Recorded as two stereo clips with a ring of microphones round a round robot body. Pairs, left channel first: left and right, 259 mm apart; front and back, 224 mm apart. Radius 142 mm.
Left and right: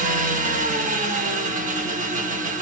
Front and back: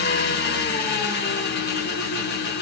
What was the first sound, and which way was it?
An engine running, 35° right.